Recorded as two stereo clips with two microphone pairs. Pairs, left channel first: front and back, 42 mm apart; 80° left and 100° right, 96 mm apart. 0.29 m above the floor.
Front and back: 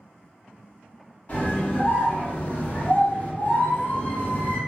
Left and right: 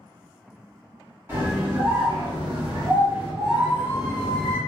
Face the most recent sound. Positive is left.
turn(degrees=-40)